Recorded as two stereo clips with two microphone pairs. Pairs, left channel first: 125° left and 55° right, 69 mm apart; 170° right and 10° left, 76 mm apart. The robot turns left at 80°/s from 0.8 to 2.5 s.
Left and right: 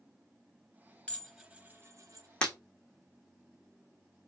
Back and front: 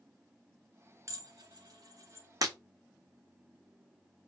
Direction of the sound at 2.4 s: 50° left.